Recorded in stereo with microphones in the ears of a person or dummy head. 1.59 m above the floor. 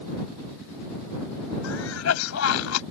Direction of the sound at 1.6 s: 85° left.